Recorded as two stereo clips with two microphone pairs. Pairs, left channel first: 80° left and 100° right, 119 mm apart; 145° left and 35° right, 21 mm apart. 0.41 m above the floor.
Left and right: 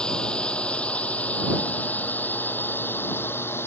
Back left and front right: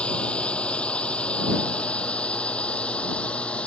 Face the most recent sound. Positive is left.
turn(degrees=150)